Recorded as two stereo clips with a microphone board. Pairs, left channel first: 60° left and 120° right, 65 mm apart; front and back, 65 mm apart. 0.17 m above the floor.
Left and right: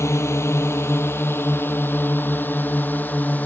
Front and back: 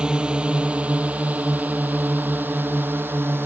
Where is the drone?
105° left; by 3.5 s 125° left.